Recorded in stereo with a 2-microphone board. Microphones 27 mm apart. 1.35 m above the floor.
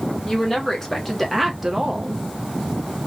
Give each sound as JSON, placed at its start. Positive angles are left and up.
{"t": 0.2, "sound": "a woman speaking", "side_deg": 15, "distance_m": 1.3}